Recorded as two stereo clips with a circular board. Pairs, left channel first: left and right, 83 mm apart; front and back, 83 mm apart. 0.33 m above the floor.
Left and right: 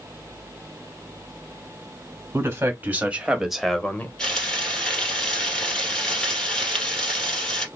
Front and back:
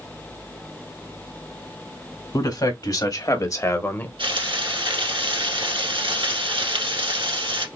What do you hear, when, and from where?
2.3 s a man speaking: 30° right, 1.8 m; by 4.1 s 45° left, 0.9 m
4.2 s frying: 170° left, 2 m